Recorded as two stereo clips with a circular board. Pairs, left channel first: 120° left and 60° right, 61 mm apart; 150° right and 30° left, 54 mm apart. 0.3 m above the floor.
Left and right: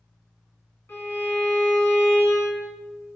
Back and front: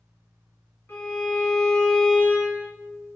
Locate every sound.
0.9 s a violin: 165° left, 1.8 m